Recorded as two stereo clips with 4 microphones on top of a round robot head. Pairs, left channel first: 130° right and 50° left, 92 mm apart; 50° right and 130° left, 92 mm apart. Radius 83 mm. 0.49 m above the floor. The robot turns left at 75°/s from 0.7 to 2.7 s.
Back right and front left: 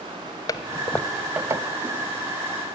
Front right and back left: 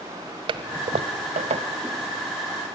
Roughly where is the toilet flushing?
Behind.